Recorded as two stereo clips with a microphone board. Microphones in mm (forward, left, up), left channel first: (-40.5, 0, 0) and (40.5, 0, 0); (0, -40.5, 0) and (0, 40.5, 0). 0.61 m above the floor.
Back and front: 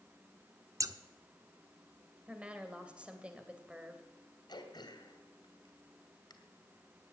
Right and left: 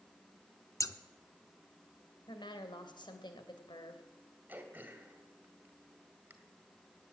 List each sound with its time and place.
0.8 s scissors: 45° right, 0.7 m
2.3 s a woman speaking: 75° right, 2.5 m
4.5 s throat clearing: 160° left, 1.9 m